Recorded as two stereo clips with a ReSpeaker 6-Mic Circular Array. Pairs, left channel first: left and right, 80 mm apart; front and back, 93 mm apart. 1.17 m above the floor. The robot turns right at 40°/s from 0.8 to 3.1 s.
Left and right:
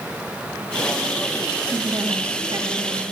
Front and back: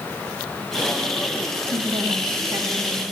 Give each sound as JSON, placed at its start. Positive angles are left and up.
{"t": 1.7, "sound": "a woman speaking", "azimuth_deg": -160, "distance_m": 2.0}